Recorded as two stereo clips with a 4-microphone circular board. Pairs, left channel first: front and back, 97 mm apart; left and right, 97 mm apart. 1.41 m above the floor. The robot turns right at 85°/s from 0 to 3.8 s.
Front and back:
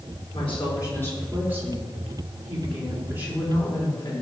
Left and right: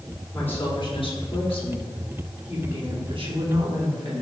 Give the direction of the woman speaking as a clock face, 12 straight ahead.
12 o'clock.